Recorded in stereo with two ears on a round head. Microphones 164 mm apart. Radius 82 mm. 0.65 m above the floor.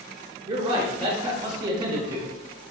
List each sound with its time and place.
0.5 s a man speaking: 25° right (ahead or behind), 0.7 m